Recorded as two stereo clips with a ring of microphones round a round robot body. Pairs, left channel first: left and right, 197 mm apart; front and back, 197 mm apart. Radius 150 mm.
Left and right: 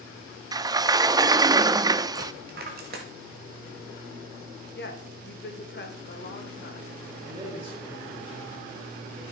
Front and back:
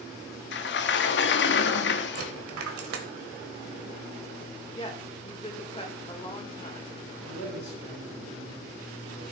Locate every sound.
0.5 s a sliding door: 20° right, 0.5 m
2.1 s a dropped coin: 150° right, 1.0 m
4.8 s a woman speaking: 60° left, 2.0 m
7.2 s a man speaking: 25° right, 3 m